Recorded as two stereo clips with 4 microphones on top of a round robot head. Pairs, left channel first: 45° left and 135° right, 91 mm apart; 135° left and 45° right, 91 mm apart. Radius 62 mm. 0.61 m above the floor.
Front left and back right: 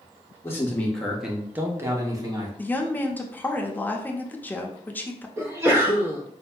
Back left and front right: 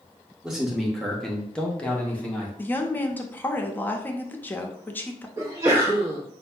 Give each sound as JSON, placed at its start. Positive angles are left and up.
{"t": 0.4, "sound": "a man speaking", "azimuth_deg": 35, "distance_m": 0.9}
{"t": 2.6, "sound": "a woman speaking", "azimuth_deg": 90, "distance_m": 0.6}
{"t": 5.4, "sound": "a sneeze", "azimuth_deg": -90, "distance_m": 1.0}